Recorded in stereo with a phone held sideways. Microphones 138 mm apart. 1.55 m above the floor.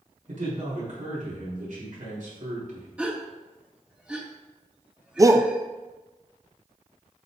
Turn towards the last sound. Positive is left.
turn(degrees=-25)  # may be behind; listen again after turning